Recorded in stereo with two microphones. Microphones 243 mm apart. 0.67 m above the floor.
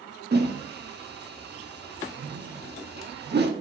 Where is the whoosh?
45° right (ahead or behind), 1.0 m.